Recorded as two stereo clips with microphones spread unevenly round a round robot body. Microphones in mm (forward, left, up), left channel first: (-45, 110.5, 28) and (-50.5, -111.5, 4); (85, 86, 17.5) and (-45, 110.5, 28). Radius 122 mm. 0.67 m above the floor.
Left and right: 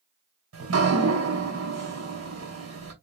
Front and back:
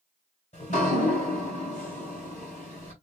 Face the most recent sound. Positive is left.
turn(degrees=-65)